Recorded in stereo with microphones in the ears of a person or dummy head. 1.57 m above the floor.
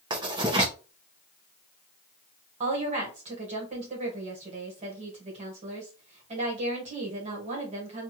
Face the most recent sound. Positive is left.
turn(degrees=-35)  # may be behind; listen again after turning